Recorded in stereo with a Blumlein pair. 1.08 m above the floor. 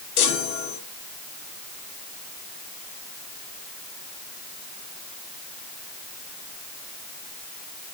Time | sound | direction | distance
0.2 | a chime | 45° left | 2 m